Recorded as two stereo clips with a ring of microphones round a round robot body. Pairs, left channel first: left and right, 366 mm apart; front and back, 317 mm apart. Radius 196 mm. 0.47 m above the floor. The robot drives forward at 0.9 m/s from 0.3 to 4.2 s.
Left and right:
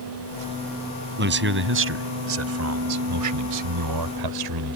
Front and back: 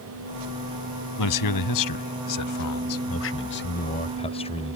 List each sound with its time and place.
1.2 s a man speaking: 30° right; by 4.8 s 75° right